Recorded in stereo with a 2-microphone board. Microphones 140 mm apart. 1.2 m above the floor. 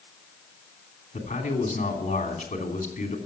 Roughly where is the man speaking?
Left.